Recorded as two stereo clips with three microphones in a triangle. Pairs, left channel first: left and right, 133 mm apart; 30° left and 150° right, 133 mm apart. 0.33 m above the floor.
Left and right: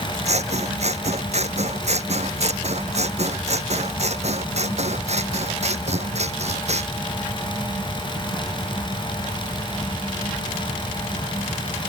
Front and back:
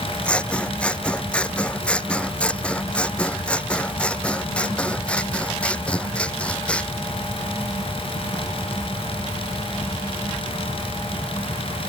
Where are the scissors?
50° right.